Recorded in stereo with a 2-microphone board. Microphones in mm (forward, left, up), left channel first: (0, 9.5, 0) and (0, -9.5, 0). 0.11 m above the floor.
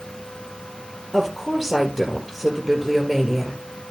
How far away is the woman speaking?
About 2.5 m.